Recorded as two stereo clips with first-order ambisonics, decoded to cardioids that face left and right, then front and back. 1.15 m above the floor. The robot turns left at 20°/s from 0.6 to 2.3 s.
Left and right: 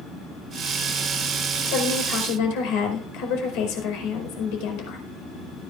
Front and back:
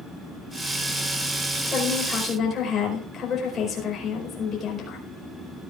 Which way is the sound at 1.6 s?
80° left.